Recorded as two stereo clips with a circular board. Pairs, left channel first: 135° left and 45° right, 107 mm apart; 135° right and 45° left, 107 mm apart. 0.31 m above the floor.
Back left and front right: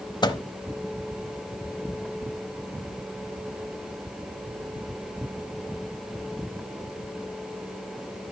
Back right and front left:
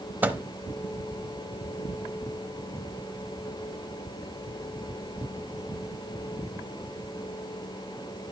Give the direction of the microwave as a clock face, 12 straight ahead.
8 o'clock.